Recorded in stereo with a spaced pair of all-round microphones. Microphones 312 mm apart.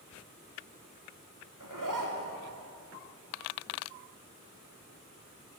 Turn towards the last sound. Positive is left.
turn(degrees=-85)